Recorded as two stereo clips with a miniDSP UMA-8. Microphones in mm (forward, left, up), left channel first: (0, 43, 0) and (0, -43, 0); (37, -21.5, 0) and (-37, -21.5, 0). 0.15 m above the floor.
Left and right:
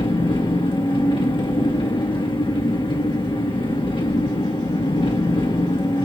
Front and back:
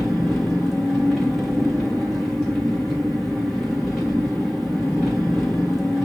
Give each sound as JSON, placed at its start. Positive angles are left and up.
{"t": 0.0, "sound": "an engine running", "azimuth_deg": 90, "distance_m": 3.0}